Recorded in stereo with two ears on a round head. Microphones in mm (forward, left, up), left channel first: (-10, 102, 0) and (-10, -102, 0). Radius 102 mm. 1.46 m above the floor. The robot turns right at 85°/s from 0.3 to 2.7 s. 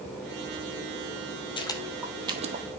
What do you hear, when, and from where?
1.6 s footsteps: 20° left (ahead or behind), 1.5 m; by 2.6 s 40° right (ahead or behind), 1.8 m